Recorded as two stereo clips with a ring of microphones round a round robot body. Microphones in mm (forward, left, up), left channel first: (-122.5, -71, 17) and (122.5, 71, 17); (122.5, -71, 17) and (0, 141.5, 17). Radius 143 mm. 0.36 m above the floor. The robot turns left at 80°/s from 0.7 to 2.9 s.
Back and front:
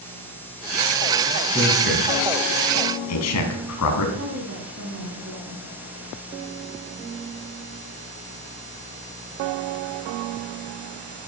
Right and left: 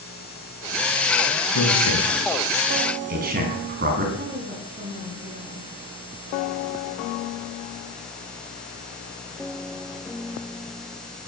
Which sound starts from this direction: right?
A man speaking, at 1.5 s.